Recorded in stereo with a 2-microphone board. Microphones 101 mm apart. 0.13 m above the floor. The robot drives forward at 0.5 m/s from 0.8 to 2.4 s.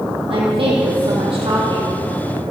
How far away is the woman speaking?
About 4 m.